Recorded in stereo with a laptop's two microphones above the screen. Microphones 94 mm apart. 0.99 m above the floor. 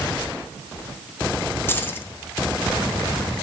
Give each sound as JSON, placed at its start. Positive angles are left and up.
{"t": 1.7, "sound": "keys jangling", "side_deg": 25, "distance_m": 1.4}